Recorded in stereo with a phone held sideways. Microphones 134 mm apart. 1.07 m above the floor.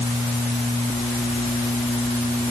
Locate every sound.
Only background noise.